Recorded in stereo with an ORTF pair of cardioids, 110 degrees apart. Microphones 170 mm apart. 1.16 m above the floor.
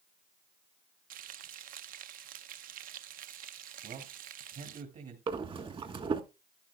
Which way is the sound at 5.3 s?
35° right.